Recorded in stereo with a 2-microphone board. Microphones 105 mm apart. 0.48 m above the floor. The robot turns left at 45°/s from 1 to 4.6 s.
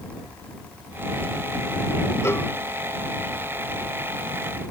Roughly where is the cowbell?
Left.